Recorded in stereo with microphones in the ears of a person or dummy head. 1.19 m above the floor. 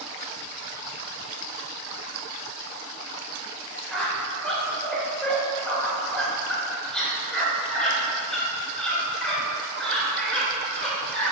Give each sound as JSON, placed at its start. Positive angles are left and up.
{"t": 3.9, "sound": "a squeak", "side_deg": 5, "distance_m": 2.0}